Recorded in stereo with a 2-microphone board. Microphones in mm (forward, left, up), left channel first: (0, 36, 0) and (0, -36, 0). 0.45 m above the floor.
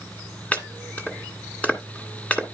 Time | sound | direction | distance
0.5 | chopping | 20° left (ahead or behind) | 1.7 m